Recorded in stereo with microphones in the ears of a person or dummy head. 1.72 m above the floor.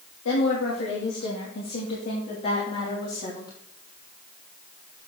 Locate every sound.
0.2 s a woman speaking: 75° left (ahead or behind), 3 m; by 3.5 s 30° left (ahead or behind), 3.5 m